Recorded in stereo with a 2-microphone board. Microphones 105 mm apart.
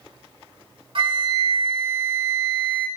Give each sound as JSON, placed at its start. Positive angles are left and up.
{"t": 0.9, "sound": "a flute", "side_deg": -55, "distance_m": 2.0}